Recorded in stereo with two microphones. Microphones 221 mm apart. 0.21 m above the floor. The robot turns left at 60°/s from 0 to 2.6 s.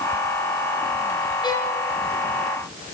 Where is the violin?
20° left (ahead or behind), 3.5 m; by 1.8 s centre (ahead or behind), 3.5 m.